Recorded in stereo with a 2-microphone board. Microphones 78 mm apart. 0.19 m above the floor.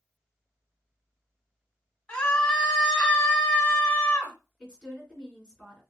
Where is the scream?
15° left (ahead or behind), 1.1 m.